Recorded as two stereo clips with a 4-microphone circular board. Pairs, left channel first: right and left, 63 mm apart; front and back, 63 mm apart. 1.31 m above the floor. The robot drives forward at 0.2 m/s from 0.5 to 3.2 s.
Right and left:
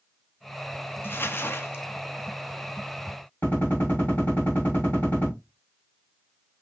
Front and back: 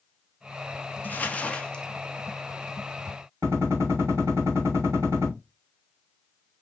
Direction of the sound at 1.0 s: 50° right.